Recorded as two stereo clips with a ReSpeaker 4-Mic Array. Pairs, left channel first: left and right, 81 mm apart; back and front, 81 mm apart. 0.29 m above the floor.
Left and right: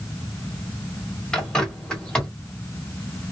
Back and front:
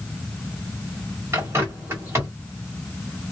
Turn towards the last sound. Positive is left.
turn(degrees=15)